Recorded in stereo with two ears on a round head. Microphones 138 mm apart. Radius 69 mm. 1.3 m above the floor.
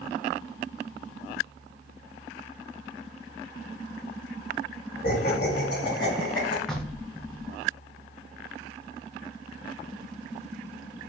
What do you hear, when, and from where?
5.0 s laughter: 70° left (ahead or behind), 1.4 m; by 6.6 s 80° left, 2.5 m
6.7 s knocking: 5° left (ahead or behind), 0.6 m